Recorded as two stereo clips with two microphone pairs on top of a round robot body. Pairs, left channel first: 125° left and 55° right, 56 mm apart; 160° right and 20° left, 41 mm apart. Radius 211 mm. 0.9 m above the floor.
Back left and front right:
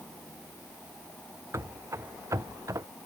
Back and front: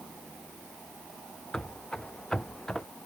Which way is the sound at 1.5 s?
90° right.